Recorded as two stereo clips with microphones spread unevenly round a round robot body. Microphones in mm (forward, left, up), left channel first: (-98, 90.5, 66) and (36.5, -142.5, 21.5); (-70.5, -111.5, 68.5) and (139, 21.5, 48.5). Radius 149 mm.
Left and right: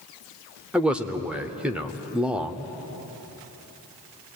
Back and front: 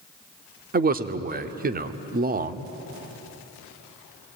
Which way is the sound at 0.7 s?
15° left.